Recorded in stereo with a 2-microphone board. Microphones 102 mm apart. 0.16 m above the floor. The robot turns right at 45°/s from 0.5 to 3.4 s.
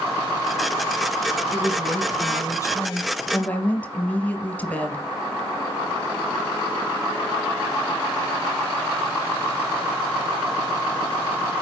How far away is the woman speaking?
About 1.3 m.